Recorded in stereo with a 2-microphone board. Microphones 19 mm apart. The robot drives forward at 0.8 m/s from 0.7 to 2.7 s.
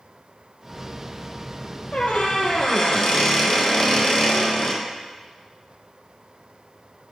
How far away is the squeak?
About 0.8 m.